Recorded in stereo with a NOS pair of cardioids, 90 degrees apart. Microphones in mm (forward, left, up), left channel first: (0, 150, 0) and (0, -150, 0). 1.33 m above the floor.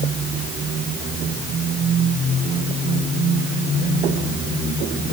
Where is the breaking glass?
I don't hear breaking glass.